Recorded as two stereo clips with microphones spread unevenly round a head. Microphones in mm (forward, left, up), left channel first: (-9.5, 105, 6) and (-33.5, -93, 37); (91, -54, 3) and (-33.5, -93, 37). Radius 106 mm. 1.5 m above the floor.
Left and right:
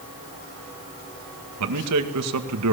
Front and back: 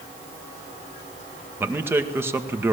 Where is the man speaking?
90° right, 2 m.